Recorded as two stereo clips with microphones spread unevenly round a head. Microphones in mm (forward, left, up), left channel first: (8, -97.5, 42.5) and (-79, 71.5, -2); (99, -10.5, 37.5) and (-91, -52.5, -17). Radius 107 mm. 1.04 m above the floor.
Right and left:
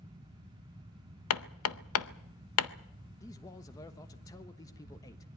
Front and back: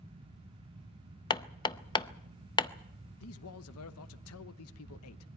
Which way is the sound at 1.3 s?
55° right.